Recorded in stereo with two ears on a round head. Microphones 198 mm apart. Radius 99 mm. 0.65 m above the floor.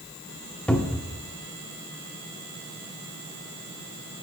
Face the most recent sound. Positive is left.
turn(degrees=5)  # may be behind; listen again after turning